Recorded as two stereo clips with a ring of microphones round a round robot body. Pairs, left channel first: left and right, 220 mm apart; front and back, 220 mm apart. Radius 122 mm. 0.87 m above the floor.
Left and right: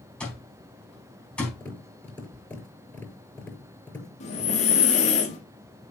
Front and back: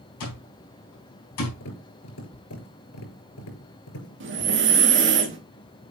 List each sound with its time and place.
0.2 s an alarm clock: 5° left, 4 m
1.6 s tapping: 5° left, 5.5 m
4.2 s breathing: 150° left, 1.8 m